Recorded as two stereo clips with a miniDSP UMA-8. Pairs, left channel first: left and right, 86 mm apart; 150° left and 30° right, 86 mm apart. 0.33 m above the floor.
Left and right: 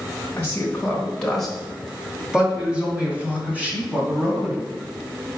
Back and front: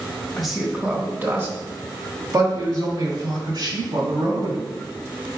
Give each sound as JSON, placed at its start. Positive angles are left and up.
{"t": 0.4, "sound": "a man speaking", "azimuth_deg": 65, "distance_m": 1.1}